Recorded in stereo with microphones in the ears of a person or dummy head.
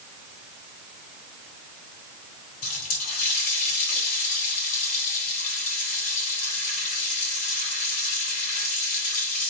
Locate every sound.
2.6 s a running tap: 45° left (ahead or behind), 3.5 m